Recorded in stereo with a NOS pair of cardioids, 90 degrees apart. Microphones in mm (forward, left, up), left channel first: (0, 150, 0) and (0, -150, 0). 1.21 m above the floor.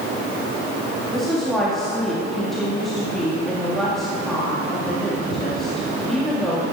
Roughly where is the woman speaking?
Ahead.